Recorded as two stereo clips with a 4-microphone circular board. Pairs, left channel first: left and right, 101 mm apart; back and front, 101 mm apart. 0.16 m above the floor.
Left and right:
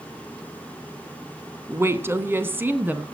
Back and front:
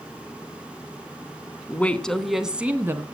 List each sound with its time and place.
1.7 s a woman speaking: 125° right, 1.1 m; by 3.0 s 35° right, 1.1 m